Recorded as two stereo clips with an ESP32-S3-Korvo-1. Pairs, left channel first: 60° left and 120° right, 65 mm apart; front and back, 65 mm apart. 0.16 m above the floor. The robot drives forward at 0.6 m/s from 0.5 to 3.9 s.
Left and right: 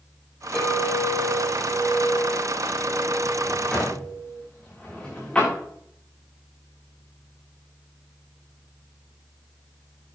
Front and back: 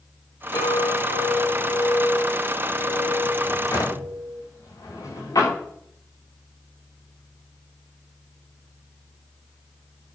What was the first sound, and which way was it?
A clink, 20° right.